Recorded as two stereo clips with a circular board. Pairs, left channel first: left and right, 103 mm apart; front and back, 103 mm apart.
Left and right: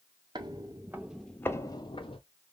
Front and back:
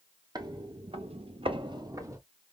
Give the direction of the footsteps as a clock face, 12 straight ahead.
4 o'clock.